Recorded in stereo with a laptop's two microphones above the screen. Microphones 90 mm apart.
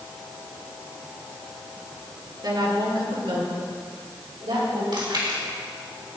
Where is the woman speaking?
55° right (ahead or behind), 2.5 m; by 4.8 s 75° right (ahead or behind), 4.5 m.